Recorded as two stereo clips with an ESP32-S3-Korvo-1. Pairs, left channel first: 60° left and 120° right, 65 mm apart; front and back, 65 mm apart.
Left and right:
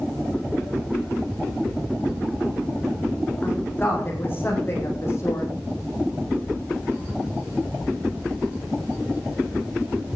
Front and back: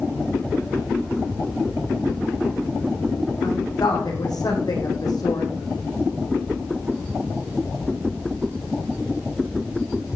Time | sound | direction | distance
3.4 | a woman speaking | straight ahead | 7 m